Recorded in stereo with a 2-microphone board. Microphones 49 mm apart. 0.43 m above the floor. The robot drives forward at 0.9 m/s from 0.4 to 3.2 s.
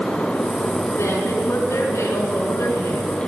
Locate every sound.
1.0 s a woman speaking: 60° left (ahead or behind), 3.5 m; by 3.1 s 75° left (ahead or behind), 3 m